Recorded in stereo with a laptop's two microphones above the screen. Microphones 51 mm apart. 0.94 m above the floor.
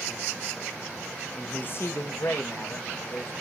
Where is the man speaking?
10° left (ahead or behind), 0.6 m; by 3.3 s 70° left (ahead or behind), 1.8 m.